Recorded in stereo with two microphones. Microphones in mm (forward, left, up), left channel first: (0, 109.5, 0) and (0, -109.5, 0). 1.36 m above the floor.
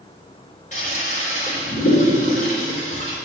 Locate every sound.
0.7 s a toilet flushing: 35° left (ahead or behind), 3 m